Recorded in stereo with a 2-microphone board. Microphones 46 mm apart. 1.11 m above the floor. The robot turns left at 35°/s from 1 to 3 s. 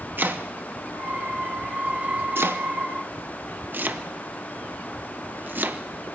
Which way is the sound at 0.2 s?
45° right (ahead or behind).